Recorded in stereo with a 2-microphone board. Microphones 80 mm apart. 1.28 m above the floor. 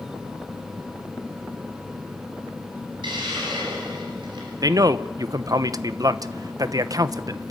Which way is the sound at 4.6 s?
50° right (ahead or behind).